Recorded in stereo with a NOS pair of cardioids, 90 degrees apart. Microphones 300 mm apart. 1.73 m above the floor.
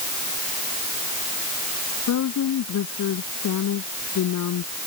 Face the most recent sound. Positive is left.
turn(degrees=65)